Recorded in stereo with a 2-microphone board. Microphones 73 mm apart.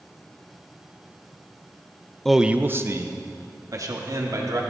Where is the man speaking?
5° left (ahead or behind), 0.6 m; by 4.6 s 55° right (ahead or behind), 3 m.